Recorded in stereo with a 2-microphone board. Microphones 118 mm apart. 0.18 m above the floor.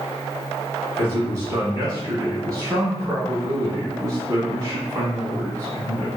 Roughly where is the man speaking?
Right.